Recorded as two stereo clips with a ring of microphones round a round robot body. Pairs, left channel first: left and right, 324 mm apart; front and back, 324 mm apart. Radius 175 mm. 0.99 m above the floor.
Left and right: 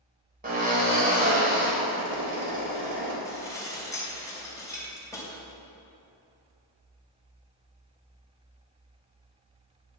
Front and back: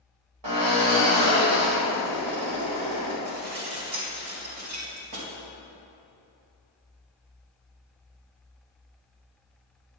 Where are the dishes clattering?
170° left, 3 m.